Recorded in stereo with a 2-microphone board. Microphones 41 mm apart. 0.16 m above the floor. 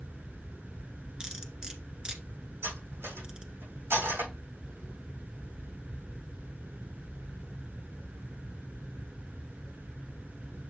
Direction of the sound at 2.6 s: 80° right.